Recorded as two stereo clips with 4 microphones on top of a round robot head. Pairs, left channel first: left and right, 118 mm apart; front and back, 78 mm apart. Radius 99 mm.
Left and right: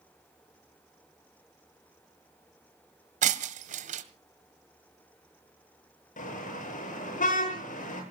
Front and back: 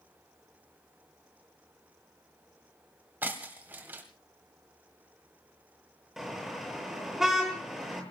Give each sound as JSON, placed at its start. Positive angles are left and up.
{"t": 3.2, "sound": "breaking glass", "azimuth_deg": -105, "distance_m": 1.8}
{"t": 6.2, "sound": "a car horn", "azimuth_deg": 95, "distance_m": 9.0}